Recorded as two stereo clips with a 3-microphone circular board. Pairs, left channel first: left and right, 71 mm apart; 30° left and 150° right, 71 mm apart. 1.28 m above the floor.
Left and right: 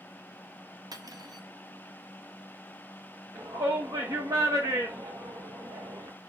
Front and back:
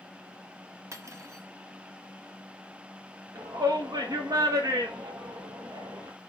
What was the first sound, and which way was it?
Cutlery clinking, 105° right.